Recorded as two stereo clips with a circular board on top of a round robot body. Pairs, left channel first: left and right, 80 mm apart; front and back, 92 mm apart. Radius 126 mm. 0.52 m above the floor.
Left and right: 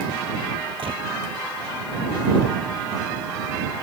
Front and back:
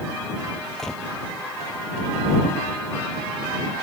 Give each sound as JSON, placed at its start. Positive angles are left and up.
{"t": 0.8, "sound": "a gunshot", "azimuth_deg": -85}